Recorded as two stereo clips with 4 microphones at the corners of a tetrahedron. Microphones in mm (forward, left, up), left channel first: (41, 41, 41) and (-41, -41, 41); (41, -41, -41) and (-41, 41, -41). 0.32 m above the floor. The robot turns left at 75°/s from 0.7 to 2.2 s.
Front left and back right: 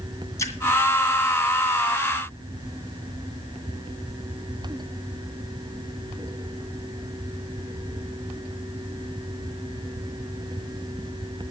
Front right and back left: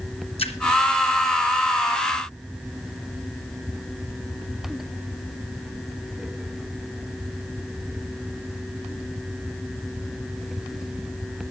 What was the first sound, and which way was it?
A splash, 20° right.